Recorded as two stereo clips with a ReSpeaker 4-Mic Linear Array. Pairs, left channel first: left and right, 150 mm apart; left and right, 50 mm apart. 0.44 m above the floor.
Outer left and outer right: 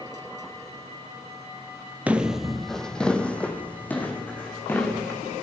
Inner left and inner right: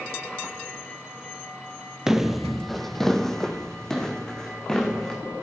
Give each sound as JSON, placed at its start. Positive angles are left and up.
{"t": 2.1, "sound": "footsteps", "side_deg": -10, "distance_m": 0.5}